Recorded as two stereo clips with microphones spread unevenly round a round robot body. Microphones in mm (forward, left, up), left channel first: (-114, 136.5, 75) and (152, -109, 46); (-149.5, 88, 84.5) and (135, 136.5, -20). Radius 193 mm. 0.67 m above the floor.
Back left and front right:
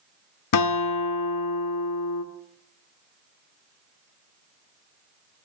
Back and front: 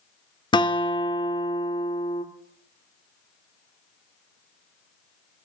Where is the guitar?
105° left, 1.5 m.